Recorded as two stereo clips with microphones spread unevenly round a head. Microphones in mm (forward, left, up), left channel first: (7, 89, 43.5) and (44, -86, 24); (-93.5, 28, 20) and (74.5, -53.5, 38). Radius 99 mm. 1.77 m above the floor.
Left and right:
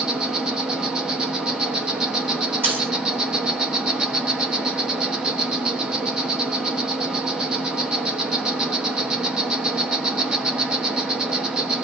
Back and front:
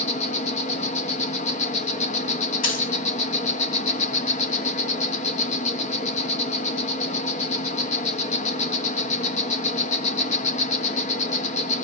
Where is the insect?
170° right, 1.2 m.